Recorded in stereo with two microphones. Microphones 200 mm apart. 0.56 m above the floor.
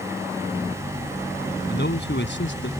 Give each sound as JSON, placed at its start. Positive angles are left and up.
{"t": 1.7, "sound": "a man speaking", "side_deg": 60}